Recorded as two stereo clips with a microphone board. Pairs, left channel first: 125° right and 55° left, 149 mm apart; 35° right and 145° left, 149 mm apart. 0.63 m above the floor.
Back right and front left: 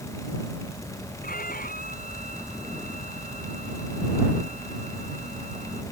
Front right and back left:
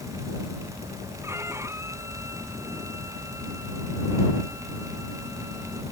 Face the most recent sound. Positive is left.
turn(degrees=-140)